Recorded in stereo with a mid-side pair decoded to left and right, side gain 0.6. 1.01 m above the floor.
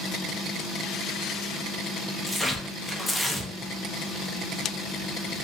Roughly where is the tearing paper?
Ahead.